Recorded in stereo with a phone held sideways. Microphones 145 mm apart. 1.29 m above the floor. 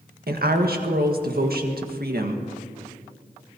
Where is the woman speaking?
75° right (ahead or behind), 1.6 m.